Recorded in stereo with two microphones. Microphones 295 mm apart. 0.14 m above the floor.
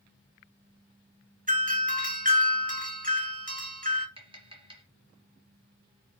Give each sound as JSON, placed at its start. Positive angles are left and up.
{"t": 1.5, "sound": "a doorbell", "side_deg": -25, "distance_m": 1.9}
{"t": 4.2, "sound": "tapping", "side_deg": -15, "distance_m": 1.9}